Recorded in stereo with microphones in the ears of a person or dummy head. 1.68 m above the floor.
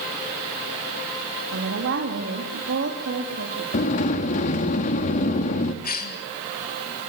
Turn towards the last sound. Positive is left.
turn(degrees=50)  # may be behind; listen again after turning